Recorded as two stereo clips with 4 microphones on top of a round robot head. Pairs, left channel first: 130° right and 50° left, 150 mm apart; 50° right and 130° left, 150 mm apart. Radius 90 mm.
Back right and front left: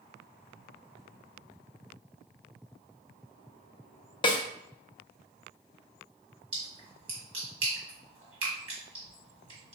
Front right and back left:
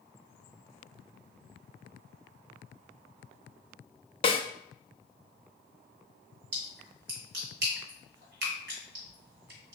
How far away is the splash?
About 1.7 m.